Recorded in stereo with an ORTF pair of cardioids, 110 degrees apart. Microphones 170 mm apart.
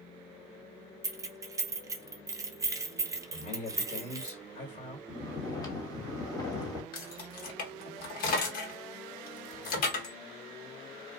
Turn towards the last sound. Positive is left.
turn(degrees=55)